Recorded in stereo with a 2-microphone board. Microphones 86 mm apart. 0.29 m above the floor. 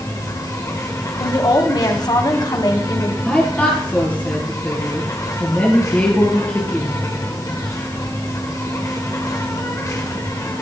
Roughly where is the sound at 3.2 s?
Centre.